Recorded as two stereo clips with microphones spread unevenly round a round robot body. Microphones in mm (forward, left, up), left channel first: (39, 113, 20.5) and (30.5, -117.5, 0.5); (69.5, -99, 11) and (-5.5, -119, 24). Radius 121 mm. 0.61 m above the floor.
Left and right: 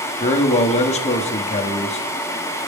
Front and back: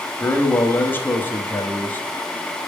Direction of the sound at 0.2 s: 40° left.